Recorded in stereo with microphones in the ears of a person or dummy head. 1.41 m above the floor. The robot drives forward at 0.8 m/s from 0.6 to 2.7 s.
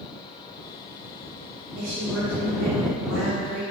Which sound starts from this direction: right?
A woman speaking, at 1.8 s.